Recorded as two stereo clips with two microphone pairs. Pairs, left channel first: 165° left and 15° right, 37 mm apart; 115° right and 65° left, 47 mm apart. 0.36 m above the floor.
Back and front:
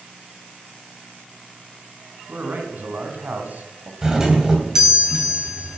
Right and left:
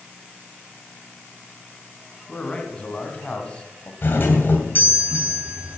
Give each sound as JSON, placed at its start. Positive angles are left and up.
{"t": 2.3, "sound": "a man speaking", "azimuth_deg": -50, "distance_m": 3.0}
{"t": 4.0, "sound": "a doorbell", "azimuth_deg": -85, "distance_m": 2.5}